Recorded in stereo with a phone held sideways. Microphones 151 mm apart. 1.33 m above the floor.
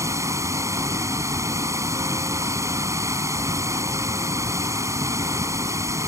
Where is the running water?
20° right (ahead or behind).